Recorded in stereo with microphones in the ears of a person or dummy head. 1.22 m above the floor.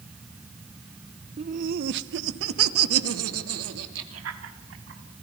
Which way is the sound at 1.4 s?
35° right (ahead or behind).